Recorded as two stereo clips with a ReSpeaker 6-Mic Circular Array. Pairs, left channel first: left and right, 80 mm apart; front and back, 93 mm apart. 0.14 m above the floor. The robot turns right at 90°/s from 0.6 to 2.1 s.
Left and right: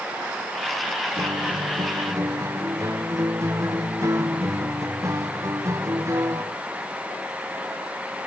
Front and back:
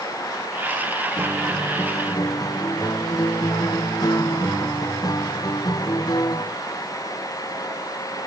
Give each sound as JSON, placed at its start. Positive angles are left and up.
{"t": 1.2, "sound": "a guitar", "azimuth_deg": -125}